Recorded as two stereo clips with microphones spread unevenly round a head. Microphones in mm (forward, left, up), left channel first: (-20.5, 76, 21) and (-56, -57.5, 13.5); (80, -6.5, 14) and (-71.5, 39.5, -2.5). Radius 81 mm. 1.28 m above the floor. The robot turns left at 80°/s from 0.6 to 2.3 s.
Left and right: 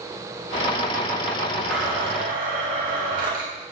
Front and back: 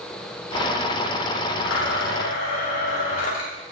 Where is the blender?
10° right, 2 m; by 3.6 s 65° right, 2 m.